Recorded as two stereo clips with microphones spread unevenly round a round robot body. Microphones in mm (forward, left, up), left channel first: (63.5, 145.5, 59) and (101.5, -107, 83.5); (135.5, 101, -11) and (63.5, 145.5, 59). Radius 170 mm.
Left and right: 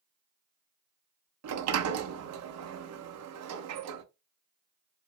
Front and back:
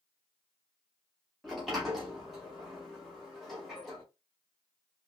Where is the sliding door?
90° right, 0.6 m.